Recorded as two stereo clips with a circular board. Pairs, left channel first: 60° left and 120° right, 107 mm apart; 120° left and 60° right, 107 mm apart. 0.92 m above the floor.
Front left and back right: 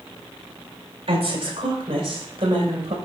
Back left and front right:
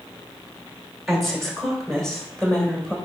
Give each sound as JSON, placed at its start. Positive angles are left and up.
{"t": 1.1, "sound": "a woman speaking", "azimuth_deg": -150, "distance_m": 3.0}